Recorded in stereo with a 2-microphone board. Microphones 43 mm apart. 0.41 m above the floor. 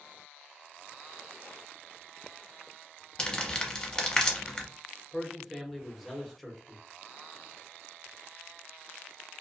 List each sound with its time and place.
3.2 s crumpling: 20° left (ahead or behind), 0.7 m
5.1 s a man speaking: centre (ahead or behind), 0.8 m